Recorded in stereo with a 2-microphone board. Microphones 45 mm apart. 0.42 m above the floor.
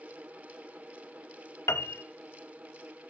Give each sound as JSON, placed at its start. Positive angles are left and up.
{"t": 1.7, "sound": "a piano", "side_deg": 75, "distance_m": 0.8}